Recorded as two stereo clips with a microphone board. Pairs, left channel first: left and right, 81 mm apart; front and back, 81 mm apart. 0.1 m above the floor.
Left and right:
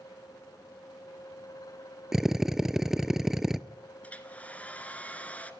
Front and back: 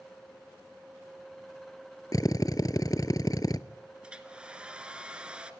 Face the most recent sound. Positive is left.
turn(degrees=125)